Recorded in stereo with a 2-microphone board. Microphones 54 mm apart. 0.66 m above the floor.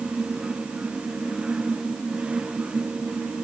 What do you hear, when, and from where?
Only background noise.